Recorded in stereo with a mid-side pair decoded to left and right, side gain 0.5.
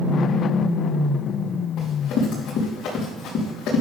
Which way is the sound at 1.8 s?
65° left.